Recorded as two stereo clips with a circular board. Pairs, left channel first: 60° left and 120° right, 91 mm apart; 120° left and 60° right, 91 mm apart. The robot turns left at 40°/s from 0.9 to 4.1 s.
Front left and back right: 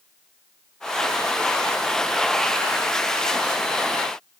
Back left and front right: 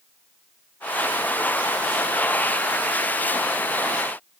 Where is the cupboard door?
I don't hear a cupboard door.